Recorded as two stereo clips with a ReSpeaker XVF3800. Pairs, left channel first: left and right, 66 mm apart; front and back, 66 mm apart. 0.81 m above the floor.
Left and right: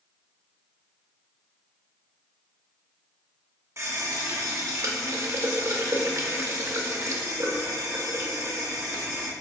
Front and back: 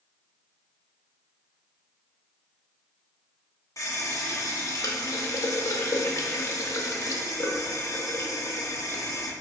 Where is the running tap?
40° right, 0.7 m.